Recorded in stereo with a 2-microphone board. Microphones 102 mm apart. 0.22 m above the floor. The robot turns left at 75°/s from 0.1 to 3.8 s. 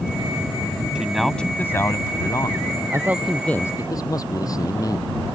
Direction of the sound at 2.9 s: 150° right.